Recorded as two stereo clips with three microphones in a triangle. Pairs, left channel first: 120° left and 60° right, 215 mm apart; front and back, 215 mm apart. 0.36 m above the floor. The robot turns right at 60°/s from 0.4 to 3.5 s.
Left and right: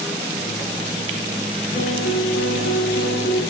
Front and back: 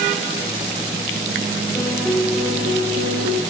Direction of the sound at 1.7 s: 70° left.